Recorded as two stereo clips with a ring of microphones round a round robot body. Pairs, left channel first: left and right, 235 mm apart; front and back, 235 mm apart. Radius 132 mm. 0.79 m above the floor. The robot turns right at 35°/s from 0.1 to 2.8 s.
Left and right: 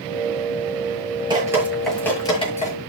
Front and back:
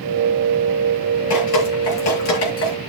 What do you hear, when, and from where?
1.3 s dripping: 20° right, 7 m; by 2.7 s 30° left, 7 m